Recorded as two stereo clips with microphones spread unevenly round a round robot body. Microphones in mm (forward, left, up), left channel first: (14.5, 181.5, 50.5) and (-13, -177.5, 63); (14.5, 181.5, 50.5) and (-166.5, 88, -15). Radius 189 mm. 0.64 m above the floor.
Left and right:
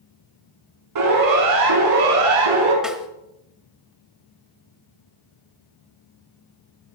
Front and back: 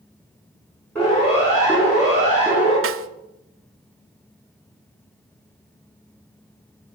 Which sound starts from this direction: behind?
A snare drum, at 2.8 s.